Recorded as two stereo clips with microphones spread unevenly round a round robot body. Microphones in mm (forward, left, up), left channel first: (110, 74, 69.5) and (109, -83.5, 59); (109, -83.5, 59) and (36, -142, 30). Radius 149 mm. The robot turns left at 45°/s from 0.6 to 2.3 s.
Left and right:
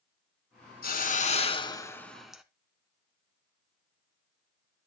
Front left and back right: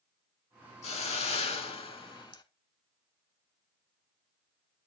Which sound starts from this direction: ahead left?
A hiss, at 0.8 s.